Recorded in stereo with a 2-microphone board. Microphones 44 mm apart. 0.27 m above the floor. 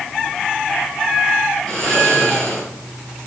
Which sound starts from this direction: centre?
Snoring, at 1.7 s.